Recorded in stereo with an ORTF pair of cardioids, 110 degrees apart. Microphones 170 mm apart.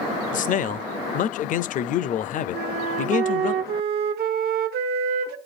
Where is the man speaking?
50° left, 0.5 m.